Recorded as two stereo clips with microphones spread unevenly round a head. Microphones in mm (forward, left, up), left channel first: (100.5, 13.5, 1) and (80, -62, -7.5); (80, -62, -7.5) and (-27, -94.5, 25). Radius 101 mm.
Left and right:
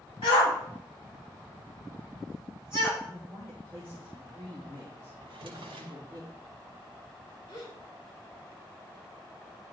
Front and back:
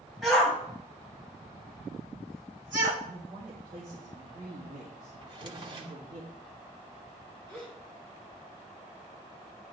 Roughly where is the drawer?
Behind right.